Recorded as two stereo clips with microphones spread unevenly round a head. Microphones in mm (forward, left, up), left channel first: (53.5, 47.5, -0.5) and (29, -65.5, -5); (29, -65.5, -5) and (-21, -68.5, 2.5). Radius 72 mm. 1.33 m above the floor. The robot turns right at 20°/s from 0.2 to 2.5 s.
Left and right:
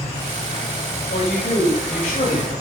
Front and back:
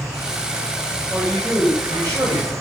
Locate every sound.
0.0 s an insect: 130° left, 4 m; by 2.6 s 175° left, 4 m
1.1 s a man speaking: 105° left, 6.5 m; by 2.5 s 130° left, 6.5 m